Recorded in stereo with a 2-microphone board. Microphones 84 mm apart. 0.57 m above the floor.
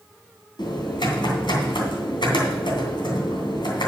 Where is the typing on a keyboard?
70° left (ahead or behind), 2.5 m.